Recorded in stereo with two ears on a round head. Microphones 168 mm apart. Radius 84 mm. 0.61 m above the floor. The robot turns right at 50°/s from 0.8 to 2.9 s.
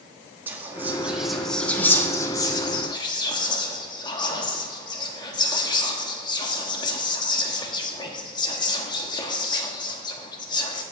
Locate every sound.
0.5 s whispering: 10° right (ahead or behind), 1.1 m; by 10.8 s 25° left (ahead or behind), 1.1 m